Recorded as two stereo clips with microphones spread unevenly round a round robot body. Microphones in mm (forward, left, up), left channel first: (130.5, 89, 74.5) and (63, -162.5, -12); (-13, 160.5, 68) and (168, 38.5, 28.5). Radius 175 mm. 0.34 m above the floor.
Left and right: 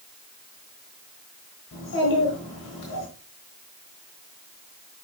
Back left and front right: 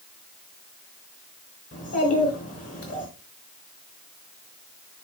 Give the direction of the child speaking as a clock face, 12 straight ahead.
7 o'clock.